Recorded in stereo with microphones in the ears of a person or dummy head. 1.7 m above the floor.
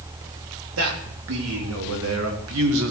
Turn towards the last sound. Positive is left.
turn(degrees=-65)  # may be behind; listen again after turning